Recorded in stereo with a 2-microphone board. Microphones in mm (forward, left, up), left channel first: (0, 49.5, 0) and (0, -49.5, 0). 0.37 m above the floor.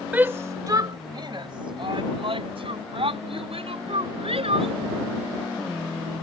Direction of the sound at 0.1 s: 15° right (ahead or behind).